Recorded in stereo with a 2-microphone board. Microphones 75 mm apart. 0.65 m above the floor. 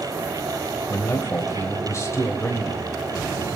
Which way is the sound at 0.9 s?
40° left (ahead or behind).